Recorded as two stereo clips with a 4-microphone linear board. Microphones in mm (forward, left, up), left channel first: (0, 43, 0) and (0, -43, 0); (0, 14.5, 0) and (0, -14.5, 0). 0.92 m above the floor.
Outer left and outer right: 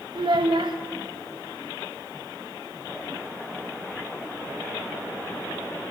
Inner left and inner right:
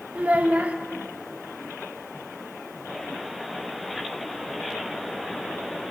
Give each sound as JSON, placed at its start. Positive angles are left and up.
{"t": 0.1, "sound": "a child speaking", "side_deg": -65, "distance_m": 0.7}